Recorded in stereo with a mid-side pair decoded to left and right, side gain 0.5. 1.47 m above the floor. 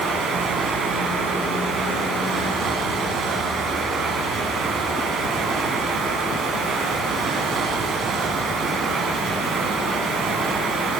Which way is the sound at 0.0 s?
65° right.